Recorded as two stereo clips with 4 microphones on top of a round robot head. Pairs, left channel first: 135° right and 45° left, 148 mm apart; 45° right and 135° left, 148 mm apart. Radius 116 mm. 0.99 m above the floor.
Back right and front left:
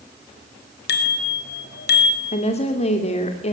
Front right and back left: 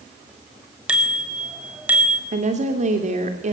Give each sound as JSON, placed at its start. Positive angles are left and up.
{"t": 0.9, "sound": "a bicycle bell", "azimuth_deg": -140, "distance_m": 4.0}
{"t": 2.3, "sound": "a woman speaking", "azimuth_deg": 175, "distance_m": 2.5}